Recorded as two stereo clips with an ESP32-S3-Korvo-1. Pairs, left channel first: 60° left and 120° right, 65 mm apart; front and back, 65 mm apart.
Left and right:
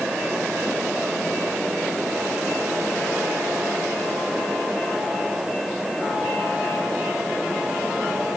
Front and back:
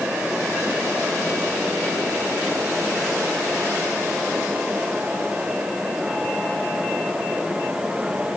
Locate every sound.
Only background noise.